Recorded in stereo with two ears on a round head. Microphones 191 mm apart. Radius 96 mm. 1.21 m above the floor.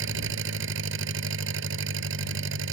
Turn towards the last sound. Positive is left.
turn(degrees=-60)  # may be behind; listen again after turning